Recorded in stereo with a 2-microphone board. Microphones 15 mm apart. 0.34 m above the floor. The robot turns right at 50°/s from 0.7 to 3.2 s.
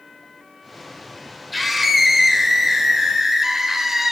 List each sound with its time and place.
1.5 s a scream: centre (ahead or behind), 1.4 m; by 4.1 s 25° right (ahead or behind), 1.4 m